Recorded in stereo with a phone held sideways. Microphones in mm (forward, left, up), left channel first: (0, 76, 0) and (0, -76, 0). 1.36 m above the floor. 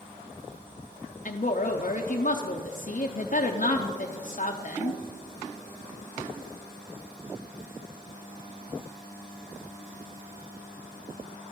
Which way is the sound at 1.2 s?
55° left (ahead or behind).